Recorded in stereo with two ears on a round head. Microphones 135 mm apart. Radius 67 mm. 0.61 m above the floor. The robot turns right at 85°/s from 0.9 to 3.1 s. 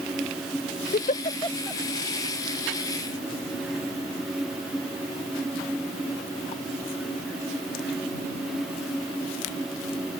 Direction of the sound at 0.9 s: 65° left (ahead or behind).